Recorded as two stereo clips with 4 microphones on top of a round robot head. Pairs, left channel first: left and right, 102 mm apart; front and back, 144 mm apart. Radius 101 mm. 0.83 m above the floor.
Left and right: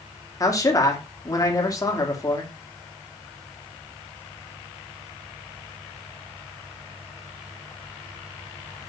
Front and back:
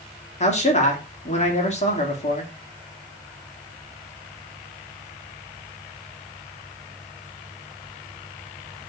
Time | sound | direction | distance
0.4 | a man speaking | 35° left | 2 m